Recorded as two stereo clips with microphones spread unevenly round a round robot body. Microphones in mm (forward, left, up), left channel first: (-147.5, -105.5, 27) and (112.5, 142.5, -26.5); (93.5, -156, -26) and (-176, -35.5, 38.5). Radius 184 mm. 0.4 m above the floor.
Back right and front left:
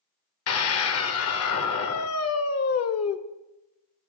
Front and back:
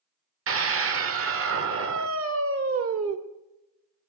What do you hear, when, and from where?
0.5 s a scream: 170° right, 1.4 m